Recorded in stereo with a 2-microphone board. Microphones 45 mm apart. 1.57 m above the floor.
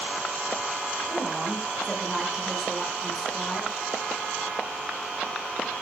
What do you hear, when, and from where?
1.1 s a woman speaking: 10° right (ahead or behind), 6 m; by 3.7 s 5° left (ahead or behind), 6.5 m